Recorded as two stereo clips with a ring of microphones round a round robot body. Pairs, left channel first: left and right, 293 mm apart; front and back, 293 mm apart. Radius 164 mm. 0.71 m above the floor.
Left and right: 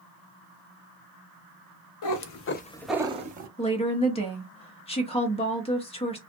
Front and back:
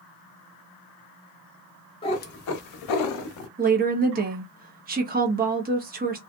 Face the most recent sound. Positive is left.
turn(degrees=145)